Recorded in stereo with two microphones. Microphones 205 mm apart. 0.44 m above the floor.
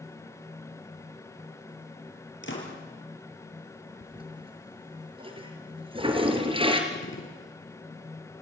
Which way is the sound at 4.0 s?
25° right (ahead or behind).